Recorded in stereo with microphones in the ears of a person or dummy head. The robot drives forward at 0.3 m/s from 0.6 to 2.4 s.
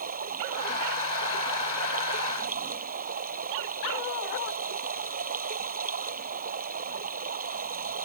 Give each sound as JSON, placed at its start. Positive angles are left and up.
{"t": 0.0, "sound": "running water", "side_deg": -45}